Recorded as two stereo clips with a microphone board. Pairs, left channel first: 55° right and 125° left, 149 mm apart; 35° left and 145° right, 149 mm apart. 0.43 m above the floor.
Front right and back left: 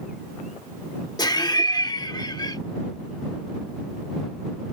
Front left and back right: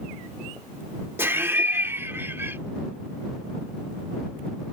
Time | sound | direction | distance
1.2 | laughter | 85° right | ?